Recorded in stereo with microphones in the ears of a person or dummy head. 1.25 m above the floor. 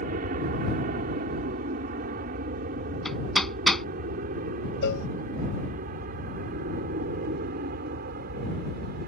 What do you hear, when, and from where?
0.0 s an aircraft: 50° right (ahead or behind)
3.0 s hammering: centre (ahead or behind)
4.8 s a cowbell: 65° left (ahead or behind)